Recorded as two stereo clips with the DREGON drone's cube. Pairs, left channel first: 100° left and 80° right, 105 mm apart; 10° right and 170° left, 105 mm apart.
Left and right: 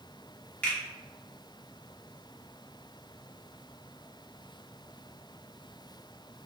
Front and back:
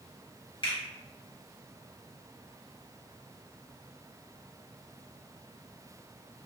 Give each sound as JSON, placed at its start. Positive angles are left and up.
{"t": 0.6, "sound": "a finger snap", "azimuth_deg": 25, "distance_m": 1.2}